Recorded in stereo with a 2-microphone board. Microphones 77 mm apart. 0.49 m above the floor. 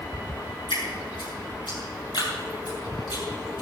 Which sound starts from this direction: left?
Dripping, at 0.7 s.